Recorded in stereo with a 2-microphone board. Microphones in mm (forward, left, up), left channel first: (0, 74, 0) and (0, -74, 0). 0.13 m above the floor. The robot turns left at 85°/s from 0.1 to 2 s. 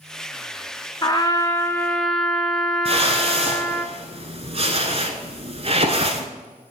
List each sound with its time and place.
1.0 s a trumpet: 30° left (ahead or behind), 0.7 m; by 3.9 s 5° left (ahead or behind), 0.7 m
2.9 s a whoosh: 45° right (ahead or behind), 0.9 m